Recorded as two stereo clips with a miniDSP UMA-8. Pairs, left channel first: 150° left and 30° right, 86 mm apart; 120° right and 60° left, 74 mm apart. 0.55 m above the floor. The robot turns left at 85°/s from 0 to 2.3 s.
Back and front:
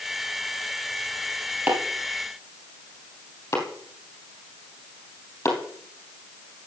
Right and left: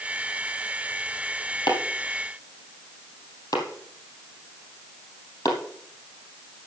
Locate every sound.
1.7 s chopping: 100° right, 3 m; by 5.6 s 155° right, 3 m